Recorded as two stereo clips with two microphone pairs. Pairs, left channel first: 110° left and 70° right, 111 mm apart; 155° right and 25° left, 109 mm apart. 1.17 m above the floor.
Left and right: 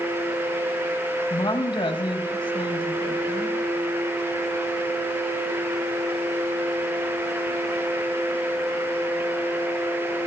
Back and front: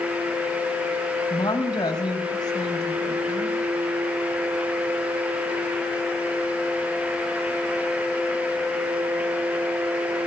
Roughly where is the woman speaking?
Behind left.